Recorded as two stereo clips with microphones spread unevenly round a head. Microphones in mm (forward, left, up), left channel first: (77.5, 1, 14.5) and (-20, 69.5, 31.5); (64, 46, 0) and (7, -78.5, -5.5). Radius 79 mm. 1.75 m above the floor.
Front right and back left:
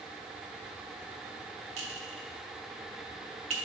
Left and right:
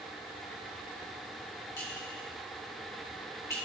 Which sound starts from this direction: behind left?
A clink, at 1.8 s.